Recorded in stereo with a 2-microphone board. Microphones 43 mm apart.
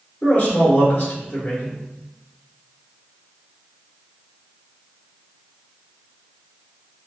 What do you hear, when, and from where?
0.2 s a man speaking: 40° left (ahead or behind), 1.6 m